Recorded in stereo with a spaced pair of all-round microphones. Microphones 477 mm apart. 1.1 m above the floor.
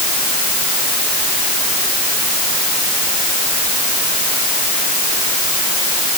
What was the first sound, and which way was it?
Only background noise.